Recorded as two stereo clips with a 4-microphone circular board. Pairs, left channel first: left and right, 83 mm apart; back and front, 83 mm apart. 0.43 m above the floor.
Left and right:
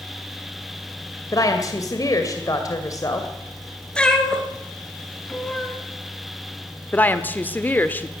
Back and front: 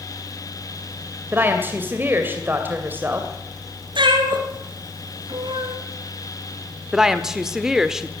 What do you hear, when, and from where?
1.3 s a woman speaking: 60° left, 2.5 m
4.0 s a cat meowing: 10° left, 3 m
6.9 s a woman speaking: 75° left, 1.3 m